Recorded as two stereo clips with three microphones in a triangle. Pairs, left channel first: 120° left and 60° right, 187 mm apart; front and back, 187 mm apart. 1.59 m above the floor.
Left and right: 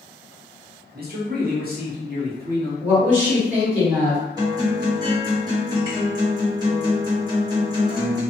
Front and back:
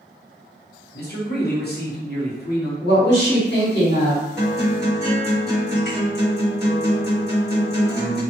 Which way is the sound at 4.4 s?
5° left.